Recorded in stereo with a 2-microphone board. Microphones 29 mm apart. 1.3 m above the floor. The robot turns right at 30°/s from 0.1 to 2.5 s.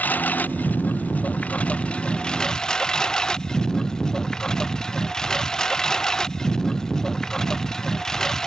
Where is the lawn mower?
80° left; by 8.5 s 20° left (ahead or behind).